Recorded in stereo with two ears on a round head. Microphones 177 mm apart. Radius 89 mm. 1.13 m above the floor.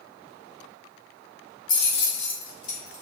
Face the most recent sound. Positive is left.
turn(degrees=75)  # may be behind; listen again after turning